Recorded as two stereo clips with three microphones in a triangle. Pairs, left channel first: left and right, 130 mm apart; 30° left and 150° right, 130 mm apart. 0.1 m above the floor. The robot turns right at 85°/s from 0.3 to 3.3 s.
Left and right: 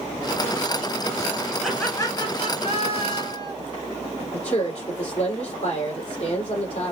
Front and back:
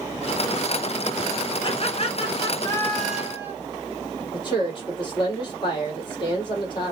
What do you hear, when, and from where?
1.6 s laughter: 5° right, 1.8 m; by 3.5 s 140° left, 1.8 m
4.3 s a woman speaking: 75° left, 3.5 m